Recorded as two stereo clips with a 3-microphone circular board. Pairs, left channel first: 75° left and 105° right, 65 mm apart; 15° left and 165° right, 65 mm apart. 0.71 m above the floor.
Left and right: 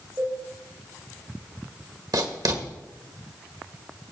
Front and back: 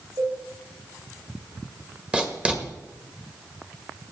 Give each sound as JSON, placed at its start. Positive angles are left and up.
{"t": 0.2, "sound": "a cowbell", "azimuth_deg": -160, "distance_m": 3.5}
{"t": 2.1, "sound": "writing", "azimuth_deg": -90, "distance_m": 1.6}